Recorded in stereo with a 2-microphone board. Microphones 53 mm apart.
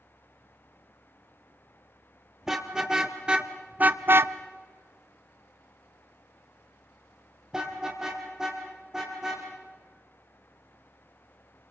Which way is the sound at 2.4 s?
10° right (ahead or behind).